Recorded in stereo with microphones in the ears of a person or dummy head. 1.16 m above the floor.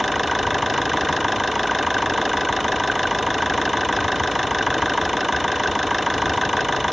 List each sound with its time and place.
0.0 s an engine running: centre (ahead or behind)